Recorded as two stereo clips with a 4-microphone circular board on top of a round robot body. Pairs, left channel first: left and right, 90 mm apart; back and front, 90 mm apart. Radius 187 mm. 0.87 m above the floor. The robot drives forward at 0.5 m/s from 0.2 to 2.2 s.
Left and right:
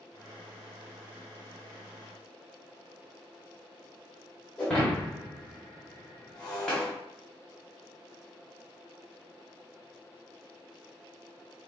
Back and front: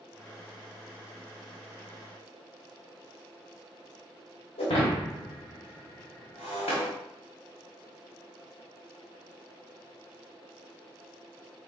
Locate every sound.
4.6 s breaking glass: 175° left, 1.1 m